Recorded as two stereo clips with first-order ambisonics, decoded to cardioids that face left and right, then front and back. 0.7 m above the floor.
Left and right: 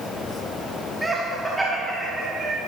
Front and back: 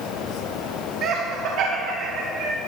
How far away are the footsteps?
I don't hear footsteps.